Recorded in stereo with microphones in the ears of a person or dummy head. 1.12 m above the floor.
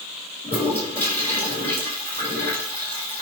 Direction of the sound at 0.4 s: 15° left (ahead or behind).